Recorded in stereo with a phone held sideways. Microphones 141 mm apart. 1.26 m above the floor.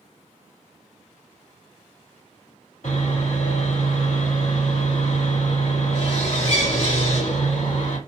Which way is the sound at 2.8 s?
80° left.